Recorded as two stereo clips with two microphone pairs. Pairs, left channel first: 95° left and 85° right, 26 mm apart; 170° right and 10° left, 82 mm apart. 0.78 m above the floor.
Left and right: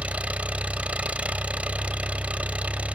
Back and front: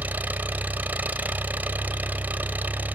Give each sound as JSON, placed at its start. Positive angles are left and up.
{"t": 0.0, "sound": "an engine running", "azimuth_deg": -60, "distance_m": 1.4}